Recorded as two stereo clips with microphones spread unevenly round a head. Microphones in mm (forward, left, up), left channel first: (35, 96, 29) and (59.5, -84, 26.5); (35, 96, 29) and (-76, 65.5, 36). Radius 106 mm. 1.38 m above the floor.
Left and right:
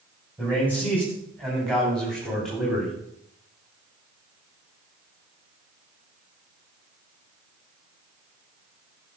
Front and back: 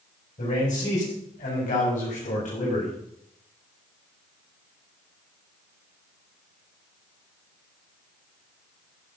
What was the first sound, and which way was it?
A man speaking, 15° left.